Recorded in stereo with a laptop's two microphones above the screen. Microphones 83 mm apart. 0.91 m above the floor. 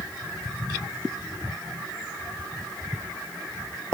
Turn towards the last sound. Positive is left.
No sound to turn to.